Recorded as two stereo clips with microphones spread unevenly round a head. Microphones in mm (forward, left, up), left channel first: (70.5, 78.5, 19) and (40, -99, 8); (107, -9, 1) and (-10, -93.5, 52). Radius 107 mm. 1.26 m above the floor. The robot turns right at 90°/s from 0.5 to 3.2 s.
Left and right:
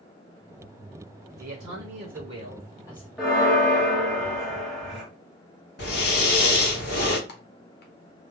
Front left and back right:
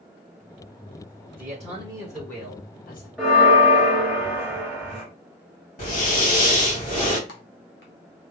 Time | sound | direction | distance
1.4 | a man speaking | 130° right | 1.4 m
3.2 | a bell | 165° left | 0.7 m
5.8 | breathing | 50° left | 1.7 m
7.3 | typing on a keyboard | 55° left | 0.7 m